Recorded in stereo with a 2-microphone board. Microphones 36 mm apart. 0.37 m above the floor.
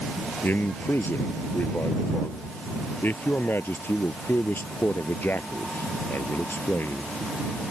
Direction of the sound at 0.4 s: 65° left (ahead or behind).